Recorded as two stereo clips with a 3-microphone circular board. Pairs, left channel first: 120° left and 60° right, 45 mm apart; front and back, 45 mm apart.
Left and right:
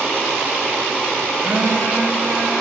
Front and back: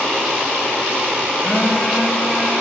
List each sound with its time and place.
1.4 s a phone buzzing: 100° right, 0.8 m